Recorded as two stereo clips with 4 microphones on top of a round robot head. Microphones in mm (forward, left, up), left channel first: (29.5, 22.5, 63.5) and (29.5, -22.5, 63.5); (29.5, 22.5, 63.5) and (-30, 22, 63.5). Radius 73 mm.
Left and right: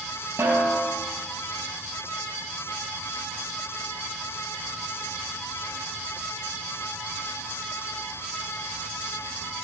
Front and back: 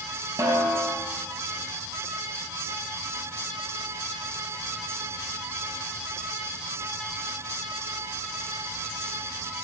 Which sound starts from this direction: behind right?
A snare drum, at 0.4 s.